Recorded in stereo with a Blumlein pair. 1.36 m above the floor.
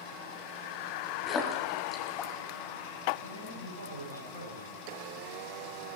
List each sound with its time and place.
1.3 s a splash: 25° left, 3 m
3.2 s a man speaking: 70° right, 7.5 m